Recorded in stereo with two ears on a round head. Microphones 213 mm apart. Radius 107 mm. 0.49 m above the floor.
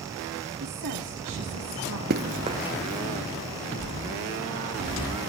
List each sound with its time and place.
0.6 s a woman speaking: 70° right (ahead or behind), 3.5 m; by 2.0 s 75° right (ahead or behind), 5.5 m
2.1 s running footsteps: 40° right (ahead or behind), 0.7 m; by 3.9 s 15° left (ahead or behind), 2.5 m